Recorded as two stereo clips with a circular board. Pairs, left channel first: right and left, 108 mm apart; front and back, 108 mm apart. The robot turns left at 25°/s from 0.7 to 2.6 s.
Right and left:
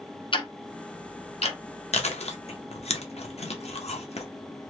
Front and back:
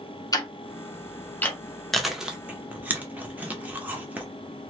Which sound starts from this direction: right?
Chewing, at 1.9 s.